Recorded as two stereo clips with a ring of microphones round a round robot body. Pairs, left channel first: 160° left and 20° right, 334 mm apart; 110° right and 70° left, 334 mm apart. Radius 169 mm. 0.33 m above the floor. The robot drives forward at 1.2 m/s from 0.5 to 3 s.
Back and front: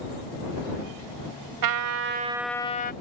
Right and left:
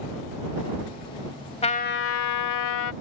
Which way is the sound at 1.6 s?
40° right.